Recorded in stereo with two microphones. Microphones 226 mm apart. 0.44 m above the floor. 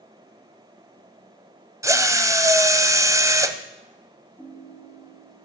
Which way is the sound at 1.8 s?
15° right (ahead or behind).